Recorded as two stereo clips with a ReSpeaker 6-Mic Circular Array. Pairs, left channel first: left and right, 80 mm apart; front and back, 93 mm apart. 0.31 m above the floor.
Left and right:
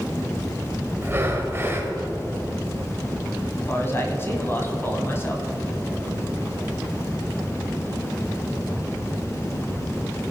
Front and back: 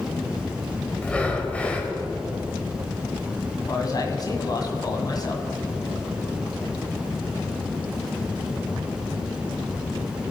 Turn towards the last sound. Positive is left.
turn(degrees=35)